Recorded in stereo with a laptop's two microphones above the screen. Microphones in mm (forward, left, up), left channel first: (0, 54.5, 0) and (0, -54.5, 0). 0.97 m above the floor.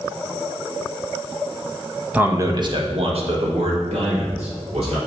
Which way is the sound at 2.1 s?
15° right (ahead or behind).